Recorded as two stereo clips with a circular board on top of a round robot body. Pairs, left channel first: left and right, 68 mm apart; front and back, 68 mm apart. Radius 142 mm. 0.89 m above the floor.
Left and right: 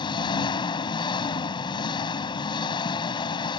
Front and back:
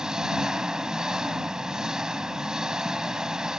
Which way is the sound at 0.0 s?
95° left.